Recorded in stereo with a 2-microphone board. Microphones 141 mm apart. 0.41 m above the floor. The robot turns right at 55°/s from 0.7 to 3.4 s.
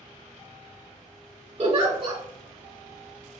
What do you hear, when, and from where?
1.6 s a giggle: 45° right (ahead or behind), 1.2 m; by 2.2 s 30° right (ahead or behind), 1.2 m